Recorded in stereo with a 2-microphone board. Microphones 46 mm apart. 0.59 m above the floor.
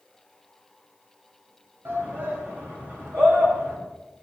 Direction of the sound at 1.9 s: 60° right (ahead or behind).